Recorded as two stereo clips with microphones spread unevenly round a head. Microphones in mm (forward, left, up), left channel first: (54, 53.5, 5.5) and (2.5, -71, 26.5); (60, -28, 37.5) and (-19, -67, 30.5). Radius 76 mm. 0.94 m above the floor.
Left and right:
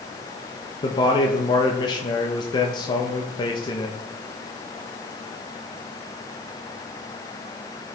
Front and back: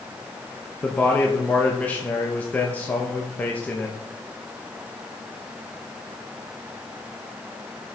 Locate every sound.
0.8 s a man speaking: 100° left, 0.9 m